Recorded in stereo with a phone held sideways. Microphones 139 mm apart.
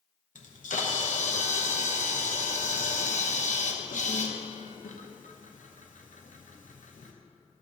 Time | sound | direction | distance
0.3 | a camera shutter | 75° left (ahead or behind) | 0.8 m